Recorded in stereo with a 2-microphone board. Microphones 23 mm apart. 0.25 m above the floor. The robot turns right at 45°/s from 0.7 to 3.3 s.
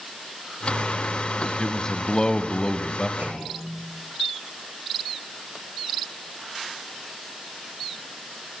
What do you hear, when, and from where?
1.6 s a man speaking: 45° left, 1.1 m; by 3.1 s 115° left, 1.1 m
3.2 s a clunk: 75° right (ahead or behind), 5.5 m